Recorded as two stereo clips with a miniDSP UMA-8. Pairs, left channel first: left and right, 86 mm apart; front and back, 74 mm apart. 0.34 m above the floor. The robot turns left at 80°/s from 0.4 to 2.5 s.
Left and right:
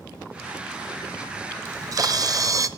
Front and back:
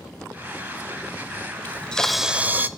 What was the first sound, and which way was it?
A camera shutter, 50° right.